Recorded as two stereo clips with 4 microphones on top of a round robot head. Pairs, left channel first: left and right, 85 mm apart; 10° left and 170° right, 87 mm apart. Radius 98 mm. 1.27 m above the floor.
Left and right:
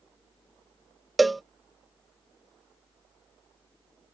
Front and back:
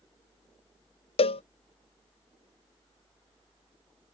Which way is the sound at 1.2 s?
Straight ahead.